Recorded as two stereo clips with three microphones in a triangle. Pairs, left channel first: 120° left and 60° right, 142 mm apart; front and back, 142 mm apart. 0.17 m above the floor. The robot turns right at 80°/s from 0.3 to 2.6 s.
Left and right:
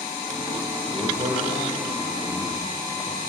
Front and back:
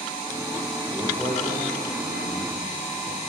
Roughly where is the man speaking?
Behind right.